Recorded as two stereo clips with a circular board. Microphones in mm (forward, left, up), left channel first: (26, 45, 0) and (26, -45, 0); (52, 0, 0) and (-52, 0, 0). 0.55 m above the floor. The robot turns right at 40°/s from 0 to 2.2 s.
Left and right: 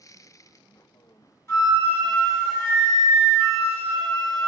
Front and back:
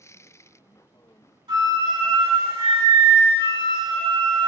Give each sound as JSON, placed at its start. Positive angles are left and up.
{"t": 1.5, "sound": "a flute", "azimuth_deg": 145, "distance_m": 1.5}